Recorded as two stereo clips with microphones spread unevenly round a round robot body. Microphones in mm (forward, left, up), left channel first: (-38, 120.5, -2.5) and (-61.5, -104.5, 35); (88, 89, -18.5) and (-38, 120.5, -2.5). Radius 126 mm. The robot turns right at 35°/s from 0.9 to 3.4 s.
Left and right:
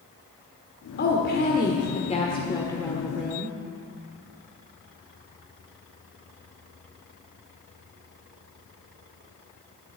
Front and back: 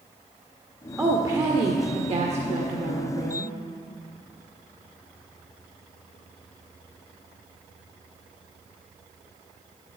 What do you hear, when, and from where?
1.0 s a woman speaking: 95° left, 1.5 m; by 3.5 s straight behind, 1.5 m